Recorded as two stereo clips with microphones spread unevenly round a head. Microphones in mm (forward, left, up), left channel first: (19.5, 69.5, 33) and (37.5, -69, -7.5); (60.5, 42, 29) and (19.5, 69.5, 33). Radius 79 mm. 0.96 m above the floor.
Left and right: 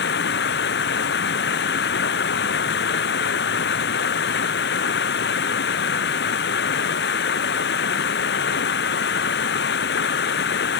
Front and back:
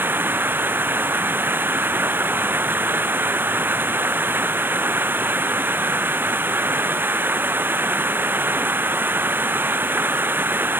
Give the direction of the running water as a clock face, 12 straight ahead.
9 o'clock.